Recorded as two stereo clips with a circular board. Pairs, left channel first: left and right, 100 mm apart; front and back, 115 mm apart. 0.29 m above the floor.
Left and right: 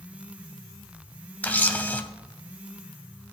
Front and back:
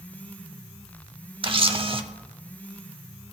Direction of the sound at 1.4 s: 160° left.